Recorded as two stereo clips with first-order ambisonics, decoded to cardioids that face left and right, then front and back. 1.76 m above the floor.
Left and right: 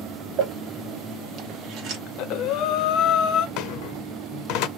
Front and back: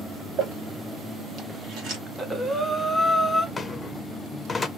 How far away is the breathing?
About 0.6 m.